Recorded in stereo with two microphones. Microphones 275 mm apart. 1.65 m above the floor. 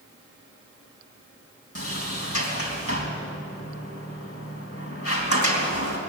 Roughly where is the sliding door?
Left.